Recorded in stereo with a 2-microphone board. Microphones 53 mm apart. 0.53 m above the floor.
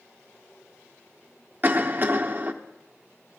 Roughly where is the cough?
Right.